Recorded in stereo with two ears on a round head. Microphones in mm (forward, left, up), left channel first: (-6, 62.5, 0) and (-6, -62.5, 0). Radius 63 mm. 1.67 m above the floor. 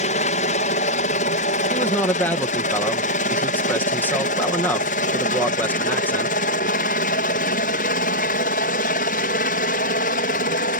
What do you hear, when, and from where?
0.0 s a helicopter: 55° left (ahead or behind); by 10.8 s 65° left (ahead or behind)
1.7 s a man speaking: 15° left (ahead or behind)